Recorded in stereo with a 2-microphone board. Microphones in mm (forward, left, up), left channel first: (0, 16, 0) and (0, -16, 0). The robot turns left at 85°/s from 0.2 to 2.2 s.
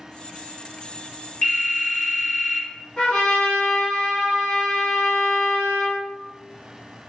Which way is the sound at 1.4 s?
80° left.